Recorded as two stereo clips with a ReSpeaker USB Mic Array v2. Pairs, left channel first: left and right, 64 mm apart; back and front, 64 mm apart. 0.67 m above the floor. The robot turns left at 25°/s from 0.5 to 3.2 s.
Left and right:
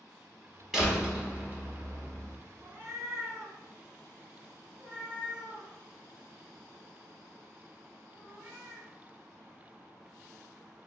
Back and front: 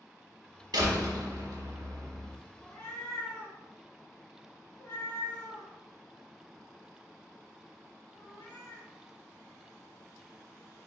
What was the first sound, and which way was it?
A door slam, 5° right.